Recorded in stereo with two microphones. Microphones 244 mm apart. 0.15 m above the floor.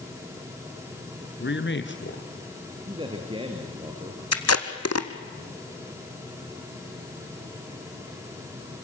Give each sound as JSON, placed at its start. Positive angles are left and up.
{"t": 1.4, "sound": "a man speaking", "side_deg": 50, "distance_m": 2.0}
{"t": 2.9, "sound": "a man speaking", "side_deg": -20, "distance_m": 2.5}
{"t": 4.3, "sound": "tape being pulled", "side_deg": 85, "distance_m": 1.5}